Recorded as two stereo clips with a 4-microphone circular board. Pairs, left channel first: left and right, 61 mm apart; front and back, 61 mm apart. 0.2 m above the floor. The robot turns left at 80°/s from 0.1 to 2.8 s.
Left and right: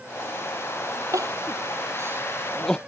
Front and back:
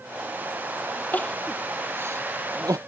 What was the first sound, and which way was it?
Crying, 60° right.